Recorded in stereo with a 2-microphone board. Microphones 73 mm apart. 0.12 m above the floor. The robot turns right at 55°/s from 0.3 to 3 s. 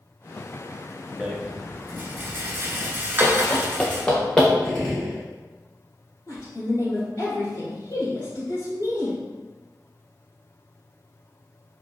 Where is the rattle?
10° right (ahead or behind), 0.7 m; by 4.0 s 30° right (ahead or behind), 0.7 m.